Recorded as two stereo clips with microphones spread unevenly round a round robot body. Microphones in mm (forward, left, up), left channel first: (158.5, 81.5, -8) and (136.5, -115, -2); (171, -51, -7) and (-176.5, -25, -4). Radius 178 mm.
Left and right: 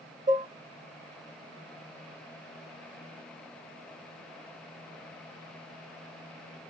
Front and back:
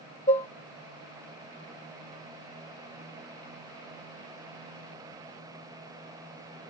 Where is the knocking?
No knocking in this recording.